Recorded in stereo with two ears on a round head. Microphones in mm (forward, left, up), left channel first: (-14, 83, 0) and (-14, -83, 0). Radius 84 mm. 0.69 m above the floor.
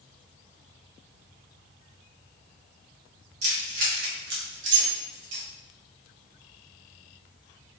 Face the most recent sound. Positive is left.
turn(degrees=-75)  # may be behind; listen again after turning